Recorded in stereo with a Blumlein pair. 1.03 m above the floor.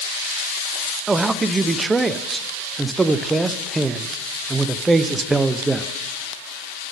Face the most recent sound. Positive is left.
turn(degrees=-10)